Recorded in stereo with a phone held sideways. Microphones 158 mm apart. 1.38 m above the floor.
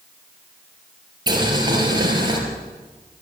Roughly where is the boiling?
Right.